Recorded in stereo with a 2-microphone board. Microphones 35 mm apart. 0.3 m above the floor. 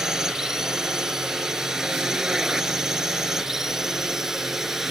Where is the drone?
15° right (ahead or behind); by 4.9 s 10° right (ahead or behind).